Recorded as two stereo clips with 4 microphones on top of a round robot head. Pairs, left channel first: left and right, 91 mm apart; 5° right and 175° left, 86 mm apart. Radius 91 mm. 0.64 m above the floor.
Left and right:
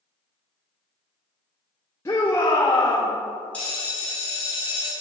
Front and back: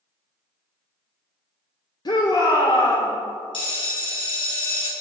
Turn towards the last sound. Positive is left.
turn(degrees=15)